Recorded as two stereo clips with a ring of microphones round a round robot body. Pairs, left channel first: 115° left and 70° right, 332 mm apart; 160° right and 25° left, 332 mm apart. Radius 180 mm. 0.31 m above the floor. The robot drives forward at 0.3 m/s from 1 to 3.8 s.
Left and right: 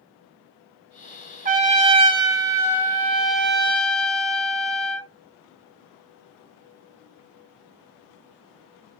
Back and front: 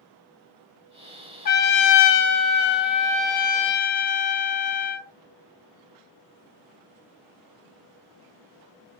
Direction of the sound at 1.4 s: 115° right.